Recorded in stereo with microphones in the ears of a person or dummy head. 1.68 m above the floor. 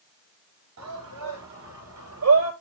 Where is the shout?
80° right, 7 m; by 2.5 s 90° right, 7.5 m.